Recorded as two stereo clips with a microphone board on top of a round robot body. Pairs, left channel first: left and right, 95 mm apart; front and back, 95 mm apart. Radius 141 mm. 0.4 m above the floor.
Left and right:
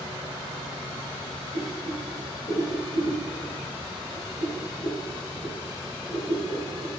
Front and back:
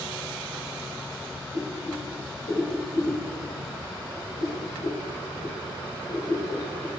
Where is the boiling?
45° left, 3 m.